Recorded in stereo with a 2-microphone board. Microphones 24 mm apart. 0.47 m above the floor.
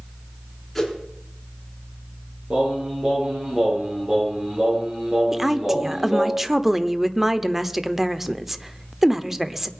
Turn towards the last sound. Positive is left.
turn(degrees=-15)  # may be behind; listen again after turning